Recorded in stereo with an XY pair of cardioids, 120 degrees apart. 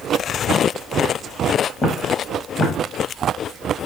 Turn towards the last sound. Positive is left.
turn(degrees=20)